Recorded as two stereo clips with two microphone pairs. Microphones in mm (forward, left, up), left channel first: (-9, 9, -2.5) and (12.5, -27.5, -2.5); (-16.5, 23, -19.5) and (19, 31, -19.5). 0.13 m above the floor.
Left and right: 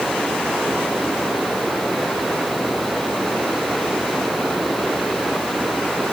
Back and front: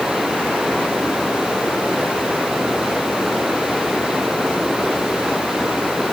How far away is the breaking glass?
I don't hear breaking glass.